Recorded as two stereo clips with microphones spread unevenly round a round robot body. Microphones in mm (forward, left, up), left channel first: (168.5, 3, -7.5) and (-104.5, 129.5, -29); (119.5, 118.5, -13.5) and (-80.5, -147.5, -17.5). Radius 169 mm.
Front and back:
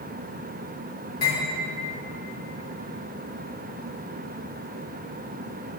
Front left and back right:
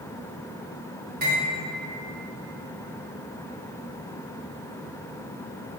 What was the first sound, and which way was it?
Cutlery clinking, 70° right.